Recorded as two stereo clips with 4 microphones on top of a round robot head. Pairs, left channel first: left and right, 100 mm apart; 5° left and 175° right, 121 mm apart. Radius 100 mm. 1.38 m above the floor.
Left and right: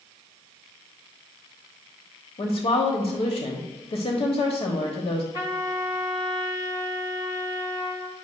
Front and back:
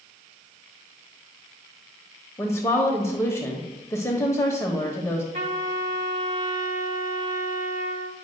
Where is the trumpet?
155° left, 2 m.